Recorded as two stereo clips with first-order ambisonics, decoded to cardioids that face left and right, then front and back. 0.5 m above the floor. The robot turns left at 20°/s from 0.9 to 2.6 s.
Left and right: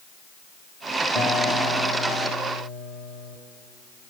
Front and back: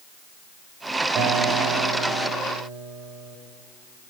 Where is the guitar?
150° left, 1.8 m; by 3.4 s 120° left, 1.8 m.